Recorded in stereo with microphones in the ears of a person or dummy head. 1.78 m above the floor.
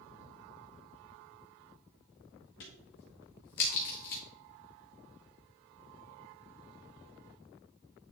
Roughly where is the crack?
Left.